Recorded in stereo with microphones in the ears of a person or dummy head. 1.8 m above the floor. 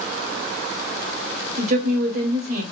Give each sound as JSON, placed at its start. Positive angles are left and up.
{"t": 1.6, "sound": "a woman speaking", "side_deg": -55, "distance_m": 1.3}